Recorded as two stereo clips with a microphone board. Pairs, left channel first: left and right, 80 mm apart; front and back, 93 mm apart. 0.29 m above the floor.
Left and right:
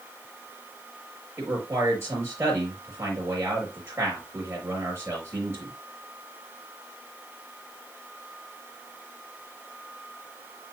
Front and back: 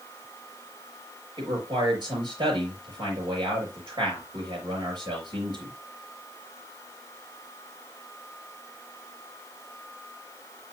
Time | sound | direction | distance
1.4 | a man speaking | 145° right | 5 m